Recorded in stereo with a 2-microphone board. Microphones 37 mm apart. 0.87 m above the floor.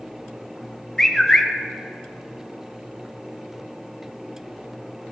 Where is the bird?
15° left (ahead or behind), 0.9 m.